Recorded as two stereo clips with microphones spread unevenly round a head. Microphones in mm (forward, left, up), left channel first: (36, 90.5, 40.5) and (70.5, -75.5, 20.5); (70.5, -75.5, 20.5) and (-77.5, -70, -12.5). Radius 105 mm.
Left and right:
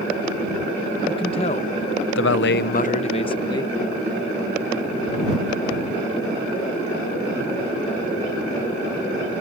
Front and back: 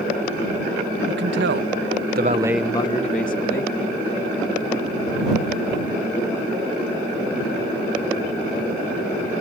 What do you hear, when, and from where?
1.1 s a man speaking: 170° left; by 3.8 s 35° left